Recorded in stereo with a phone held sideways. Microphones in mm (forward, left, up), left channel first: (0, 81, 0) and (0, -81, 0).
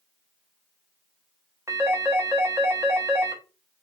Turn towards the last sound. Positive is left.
turn(degrees=-15)  # may be behind; listen again after turning